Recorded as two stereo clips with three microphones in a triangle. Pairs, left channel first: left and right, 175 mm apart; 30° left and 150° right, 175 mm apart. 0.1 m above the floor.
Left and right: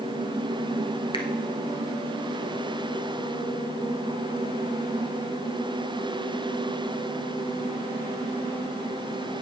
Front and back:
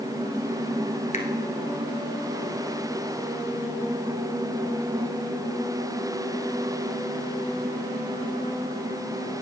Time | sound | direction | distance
1.1 | a finger snap | 45° left | 1.4 m